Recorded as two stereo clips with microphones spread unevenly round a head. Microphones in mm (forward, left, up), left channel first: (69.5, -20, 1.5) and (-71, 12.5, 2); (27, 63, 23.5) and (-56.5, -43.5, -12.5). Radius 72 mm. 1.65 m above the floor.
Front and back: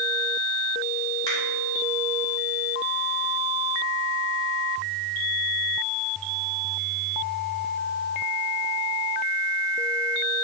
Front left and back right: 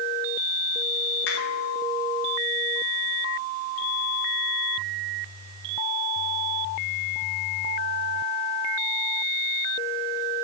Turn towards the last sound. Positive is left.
turn(degrees=55)